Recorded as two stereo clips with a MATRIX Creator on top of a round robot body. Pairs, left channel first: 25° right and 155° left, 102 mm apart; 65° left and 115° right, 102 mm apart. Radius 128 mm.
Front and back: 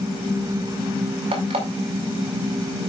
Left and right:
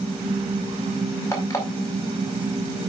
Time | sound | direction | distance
1.3 | an alarm clock | 135° left | 4.5 m